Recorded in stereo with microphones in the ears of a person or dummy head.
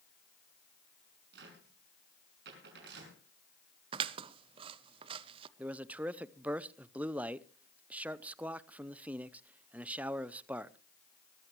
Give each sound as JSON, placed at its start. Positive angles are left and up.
{"t": 1.3, "sound": "a cupboard door", "side_deg": -70, "distance_m": 6.5}
{"t": 3.9, "sound": "scissors", "side_deg": -35, "distance_m": 0.6}
{"t": 5.6, "sound": "a man speaking", "side_deg": -10, "distance_m": 0.6}